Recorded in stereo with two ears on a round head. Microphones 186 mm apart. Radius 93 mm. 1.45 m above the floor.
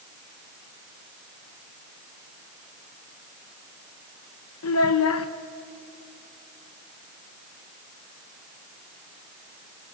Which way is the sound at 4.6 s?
80° left.